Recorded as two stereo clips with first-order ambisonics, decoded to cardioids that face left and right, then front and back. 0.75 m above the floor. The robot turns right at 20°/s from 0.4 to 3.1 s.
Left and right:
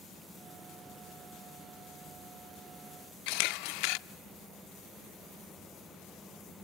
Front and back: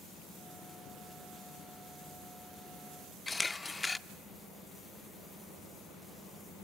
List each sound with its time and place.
3.3 s a camera shutter: 75° left, 0.6 m